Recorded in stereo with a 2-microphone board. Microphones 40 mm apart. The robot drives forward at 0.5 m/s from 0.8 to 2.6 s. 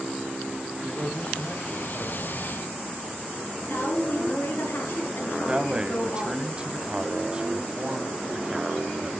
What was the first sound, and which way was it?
A man speaking, 10° right (ahead or behind).